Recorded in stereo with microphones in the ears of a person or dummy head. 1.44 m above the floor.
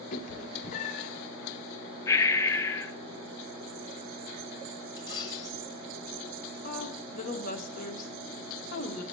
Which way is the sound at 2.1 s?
20° left (ahead or behind).